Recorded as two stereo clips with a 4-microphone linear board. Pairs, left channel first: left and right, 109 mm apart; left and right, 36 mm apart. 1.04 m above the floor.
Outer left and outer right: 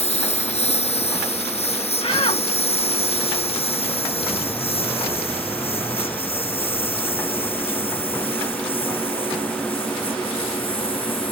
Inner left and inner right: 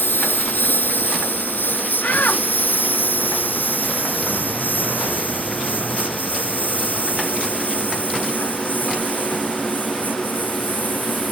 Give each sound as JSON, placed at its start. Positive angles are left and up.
{"t": 0.0, "sound": "a lawn mower", "side_deg": 70}
{"t": 2.0, "sound": "a shout", "side_deg": 65}